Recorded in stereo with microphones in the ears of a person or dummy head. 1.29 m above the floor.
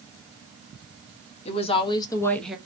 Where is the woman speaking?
30° left (ahead or behind), 0.9 m; by 2.6 s 5° right (ahead or behind), 0.5 m.